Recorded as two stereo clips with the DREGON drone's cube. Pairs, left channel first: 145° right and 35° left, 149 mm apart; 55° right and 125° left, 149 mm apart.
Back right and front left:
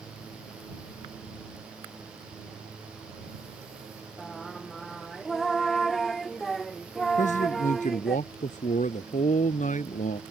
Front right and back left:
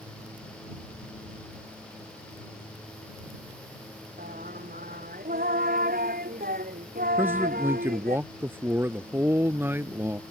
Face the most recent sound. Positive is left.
turn(degrees=-160)